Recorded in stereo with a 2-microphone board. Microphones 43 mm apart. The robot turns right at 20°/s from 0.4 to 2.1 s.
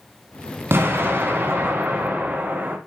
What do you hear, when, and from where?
0.7 s an explosion: 65° right (ahead or behind), 1.1 m; by 2.8 s 40° right (ahead or behind), 1.1 m